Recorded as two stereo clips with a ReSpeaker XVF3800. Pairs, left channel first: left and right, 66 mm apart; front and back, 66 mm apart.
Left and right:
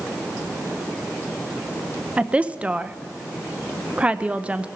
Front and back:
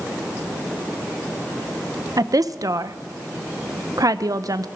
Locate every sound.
2.2 s a woman speaking: 160° right, 0.6 m